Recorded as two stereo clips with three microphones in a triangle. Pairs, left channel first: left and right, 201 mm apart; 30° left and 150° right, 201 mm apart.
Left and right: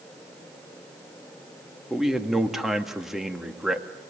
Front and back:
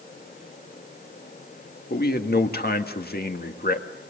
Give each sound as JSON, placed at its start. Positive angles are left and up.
{"t": 1.9, "sound": "a man speaking", "azimuth_deg": 0, "distance_m": 1.8}